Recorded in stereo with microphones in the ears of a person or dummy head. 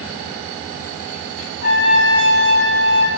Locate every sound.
1.6 s a trumpet: 55° left (ahead or behind), 1.3 m